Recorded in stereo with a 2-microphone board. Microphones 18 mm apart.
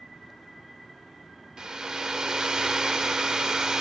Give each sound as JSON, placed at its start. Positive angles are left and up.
{"t": 1.6, "sound": "a hair dryer", "side_deg": -45, "distance_m": 0.7}